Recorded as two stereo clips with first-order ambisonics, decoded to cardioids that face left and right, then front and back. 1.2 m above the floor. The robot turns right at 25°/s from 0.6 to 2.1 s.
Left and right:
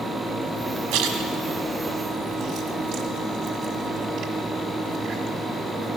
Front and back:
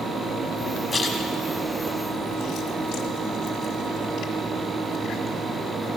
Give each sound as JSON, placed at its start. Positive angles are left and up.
{"t": 0.9, "sound": "a splash", "azimuth_deg": -75, "distance_m": 1.4}